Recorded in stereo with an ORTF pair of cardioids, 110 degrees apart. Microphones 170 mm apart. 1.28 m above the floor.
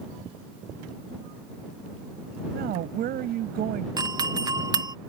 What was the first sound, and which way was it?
A woman speaking, 65° right.